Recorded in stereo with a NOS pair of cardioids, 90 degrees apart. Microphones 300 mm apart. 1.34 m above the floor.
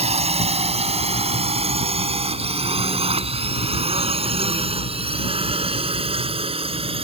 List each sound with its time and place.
0.0 s a drone: 20° right; by 7.0 s 15° right